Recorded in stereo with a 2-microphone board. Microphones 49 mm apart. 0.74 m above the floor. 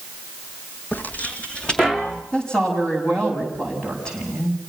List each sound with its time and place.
0.9 s footsteps: 40° left (ahead or behind), 1.8 m; by 2.2 s 10° left (ahead or behind), 2.5 m
2.3 s a woman speaking: 15° left (ahead or behind), 6.5 m